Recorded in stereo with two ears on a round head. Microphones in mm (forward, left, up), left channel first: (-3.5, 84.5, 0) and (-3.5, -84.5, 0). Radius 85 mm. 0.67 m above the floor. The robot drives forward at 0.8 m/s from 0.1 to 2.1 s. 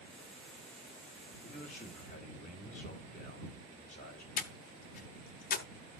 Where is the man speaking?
45° left (ahead or behind), 3.5 m; by 4.3 s 40° left (ahead or behind), 3.5 m.